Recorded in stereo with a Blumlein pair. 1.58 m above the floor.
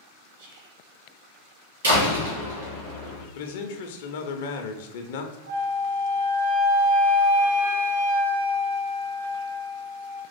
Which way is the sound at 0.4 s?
55° right.